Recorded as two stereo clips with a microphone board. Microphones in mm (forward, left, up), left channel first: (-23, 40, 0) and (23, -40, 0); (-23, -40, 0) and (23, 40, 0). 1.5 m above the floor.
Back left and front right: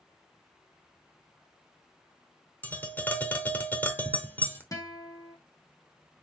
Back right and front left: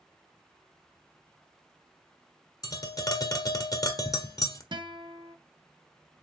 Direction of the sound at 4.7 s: 75° left.